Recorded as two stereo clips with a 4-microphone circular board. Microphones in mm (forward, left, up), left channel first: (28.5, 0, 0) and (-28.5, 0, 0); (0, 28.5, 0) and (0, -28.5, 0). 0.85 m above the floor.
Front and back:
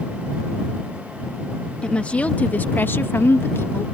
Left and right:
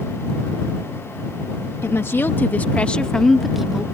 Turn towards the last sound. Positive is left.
turn(degrees=-15)